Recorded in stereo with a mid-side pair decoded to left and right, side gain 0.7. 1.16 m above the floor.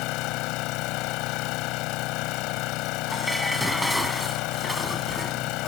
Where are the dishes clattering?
Straight ahead.